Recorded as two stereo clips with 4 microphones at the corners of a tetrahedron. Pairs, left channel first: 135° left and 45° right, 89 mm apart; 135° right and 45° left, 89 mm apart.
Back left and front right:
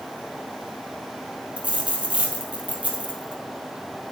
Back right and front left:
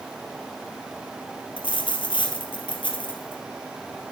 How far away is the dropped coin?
About 2.5 m.